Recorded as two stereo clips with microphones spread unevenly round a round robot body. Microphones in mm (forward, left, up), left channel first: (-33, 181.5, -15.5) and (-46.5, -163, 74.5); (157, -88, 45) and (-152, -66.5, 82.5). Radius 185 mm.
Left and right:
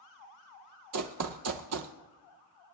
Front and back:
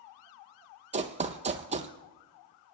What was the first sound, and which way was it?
Running footsteps, 120° right.